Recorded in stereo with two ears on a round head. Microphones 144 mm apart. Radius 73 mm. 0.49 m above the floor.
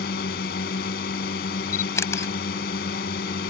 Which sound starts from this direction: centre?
A camera shutter, at 1.7 s.